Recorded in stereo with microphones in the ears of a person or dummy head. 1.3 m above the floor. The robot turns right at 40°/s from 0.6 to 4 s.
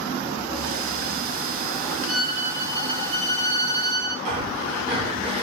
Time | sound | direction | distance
2.1 | a violin | 175° left | 1.1 m
4.2 | breathing | 35° right (ahead or behind) | 0.7 m